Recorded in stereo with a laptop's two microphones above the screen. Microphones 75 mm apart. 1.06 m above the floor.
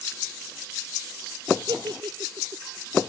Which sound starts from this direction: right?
A giggle, at 1.7 s.